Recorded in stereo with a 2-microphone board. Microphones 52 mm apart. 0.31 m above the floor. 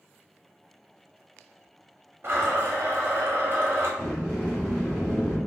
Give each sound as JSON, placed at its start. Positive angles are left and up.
{"t": 2.2, "sound": "a blender", "side_deg": -50, "distance_m": 0.7}
{"t": 4.0, "sound": "a sliding door", "side_deg": 15, "distance_m": 1.2}